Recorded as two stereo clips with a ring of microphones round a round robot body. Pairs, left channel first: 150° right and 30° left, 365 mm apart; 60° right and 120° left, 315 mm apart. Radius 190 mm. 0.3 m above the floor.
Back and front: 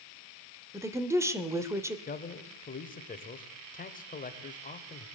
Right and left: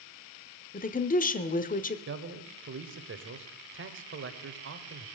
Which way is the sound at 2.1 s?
150° left.